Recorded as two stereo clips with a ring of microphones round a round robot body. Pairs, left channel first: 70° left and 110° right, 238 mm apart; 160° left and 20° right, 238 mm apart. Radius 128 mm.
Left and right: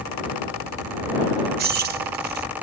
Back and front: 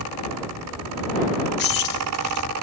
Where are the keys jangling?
160° right.